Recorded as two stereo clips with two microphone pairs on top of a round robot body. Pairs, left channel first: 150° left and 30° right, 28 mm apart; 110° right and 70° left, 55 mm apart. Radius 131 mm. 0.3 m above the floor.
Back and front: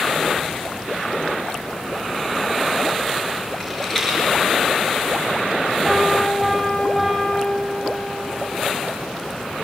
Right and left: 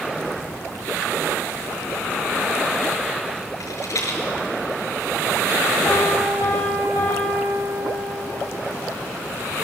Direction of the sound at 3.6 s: 135° right.